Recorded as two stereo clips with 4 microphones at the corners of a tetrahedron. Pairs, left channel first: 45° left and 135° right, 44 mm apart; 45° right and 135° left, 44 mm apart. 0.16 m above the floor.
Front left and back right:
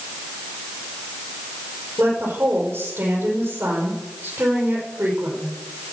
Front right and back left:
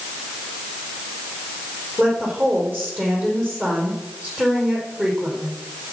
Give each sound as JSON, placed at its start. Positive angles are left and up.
{"t": 2.0, "sound": "a woman speaking", "azimuth_deg": -170, "distance_m": 5.0}